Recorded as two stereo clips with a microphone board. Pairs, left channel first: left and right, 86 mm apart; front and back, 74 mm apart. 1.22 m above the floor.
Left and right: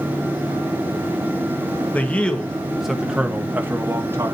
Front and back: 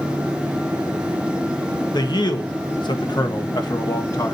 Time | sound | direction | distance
1.9 | a man speaking | 20° left | 1.6 m